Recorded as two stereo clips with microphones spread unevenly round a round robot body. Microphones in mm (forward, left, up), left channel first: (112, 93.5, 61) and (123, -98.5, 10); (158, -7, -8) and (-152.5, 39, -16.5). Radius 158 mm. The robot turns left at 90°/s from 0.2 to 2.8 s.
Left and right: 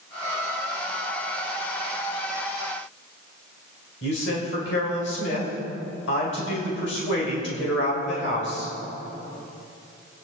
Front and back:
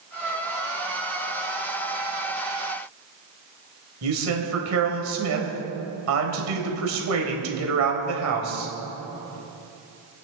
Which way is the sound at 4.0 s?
135° left.